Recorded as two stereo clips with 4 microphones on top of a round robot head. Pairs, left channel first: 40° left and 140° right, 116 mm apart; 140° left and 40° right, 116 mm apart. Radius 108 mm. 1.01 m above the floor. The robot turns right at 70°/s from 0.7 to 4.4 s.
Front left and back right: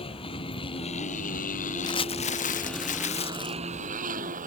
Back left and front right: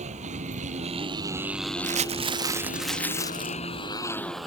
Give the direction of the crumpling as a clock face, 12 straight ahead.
1 o'clock.